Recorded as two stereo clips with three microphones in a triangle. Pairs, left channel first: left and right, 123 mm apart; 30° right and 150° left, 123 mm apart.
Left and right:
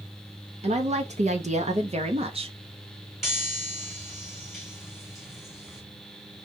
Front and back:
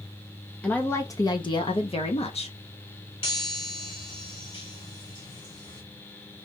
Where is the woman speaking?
110° right, 0.7 m; by 2.6 s 50° right, 1.2 m.